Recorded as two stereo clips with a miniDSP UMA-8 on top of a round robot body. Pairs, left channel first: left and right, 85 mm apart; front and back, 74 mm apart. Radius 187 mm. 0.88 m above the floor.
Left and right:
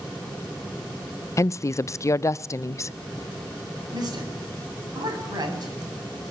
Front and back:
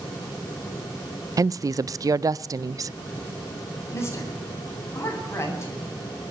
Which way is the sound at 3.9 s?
50° right.